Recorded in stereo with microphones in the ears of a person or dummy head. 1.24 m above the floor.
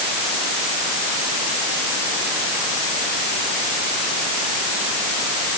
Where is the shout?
I don't hear a shout.